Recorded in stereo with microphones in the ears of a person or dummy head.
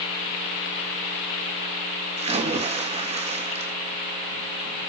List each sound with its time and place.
2.2 s a splash: 35° right (ahead or behind), 2.5 m